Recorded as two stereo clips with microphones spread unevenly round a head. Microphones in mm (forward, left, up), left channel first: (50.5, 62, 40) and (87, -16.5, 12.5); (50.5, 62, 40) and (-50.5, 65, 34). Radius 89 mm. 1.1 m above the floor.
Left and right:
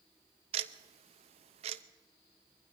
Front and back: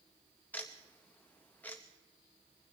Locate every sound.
0.5 s ticking: 80° right, 0.5 m